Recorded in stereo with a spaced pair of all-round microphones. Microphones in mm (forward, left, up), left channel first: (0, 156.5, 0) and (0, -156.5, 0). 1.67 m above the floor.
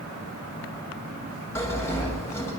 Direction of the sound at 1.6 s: 10° left (ahead or behind).